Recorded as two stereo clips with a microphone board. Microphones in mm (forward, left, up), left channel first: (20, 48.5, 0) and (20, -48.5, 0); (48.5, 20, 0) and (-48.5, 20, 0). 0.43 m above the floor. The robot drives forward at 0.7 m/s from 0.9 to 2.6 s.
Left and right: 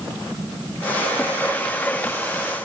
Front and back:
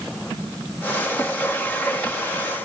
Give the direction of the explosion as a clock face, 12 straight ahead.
I don't hear an explosion.